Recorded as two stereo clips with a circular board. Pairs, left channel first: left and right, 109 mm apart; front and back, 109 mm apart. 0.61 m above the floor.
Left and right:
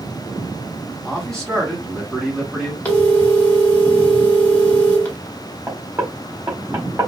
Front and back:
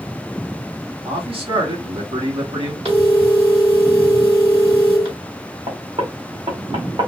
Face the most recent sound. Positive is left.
turn(degrees=-155)